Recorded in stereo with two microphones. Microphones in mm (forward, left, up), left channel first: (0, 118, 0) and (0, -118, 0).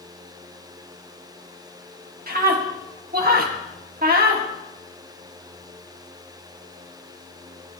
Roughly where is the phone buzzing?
I don't hear a phone buzzing.